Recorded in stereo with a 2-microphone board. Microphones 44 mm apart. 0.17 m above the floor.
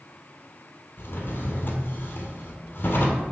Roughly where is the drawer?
Left.